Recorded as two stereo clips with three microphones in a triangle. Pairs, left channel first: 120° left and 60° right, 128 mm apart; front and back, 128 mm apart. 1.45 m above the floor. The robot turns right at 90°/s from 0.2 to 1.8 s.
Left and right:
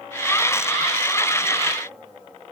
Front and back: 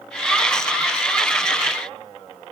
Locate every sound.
Only background noise.